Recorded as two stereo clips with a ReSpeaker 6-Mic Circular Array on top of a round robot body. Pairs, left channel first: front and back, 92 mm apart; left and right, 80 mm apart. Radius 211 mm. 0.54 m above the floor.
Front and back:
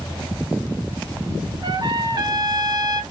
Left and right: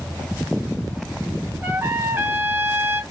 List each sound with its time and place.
1.6 s a trumpet: 145° right, 1.0 m